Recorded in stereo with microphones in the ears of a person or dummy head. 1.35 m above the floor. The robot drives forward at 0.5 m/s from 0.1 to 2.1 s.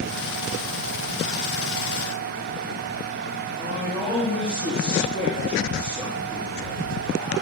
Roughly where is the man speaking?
Left.